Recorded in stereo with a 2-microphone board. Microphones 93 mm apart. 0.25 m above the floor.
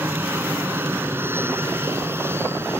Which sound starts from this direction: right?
An aircraft, at 0.0 s.